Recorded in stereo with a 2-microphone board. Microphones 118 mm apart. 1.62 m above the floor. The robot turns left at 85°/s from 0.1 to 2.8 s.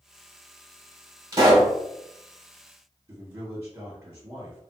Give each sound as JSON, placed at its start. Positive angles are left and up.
{"t": 1.3, "sound": "a pop", "azimuth_deg": -45, "distance_m": 1.8}
{"t": 3.1, "sound": "a man speaking", "side_deg": -30, "distance_m": 1.3}